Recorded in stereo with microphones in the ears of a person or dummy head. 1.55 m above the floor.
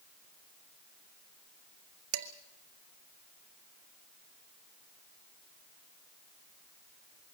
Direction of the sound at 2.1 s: 50° right (ahead or behind).